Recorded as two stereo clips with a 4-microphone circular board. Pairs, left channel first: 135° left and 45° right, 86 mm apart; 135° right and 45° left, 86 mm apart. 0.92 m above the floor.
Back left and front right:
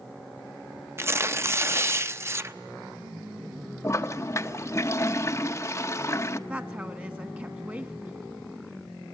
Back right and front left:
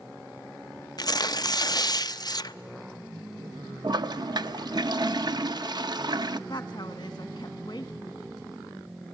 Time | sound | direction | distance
1.0 | tearing paper | 100° right | 0.5 m
3.8 | a toilet flushing | 80° left | 0.7 m
6.5 | a woman speaking | 110° right | 1.6 m